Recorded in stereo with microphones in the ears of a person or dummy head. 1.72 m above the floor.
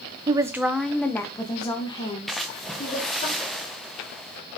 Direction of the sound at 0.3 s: 25° right (ahead or behind).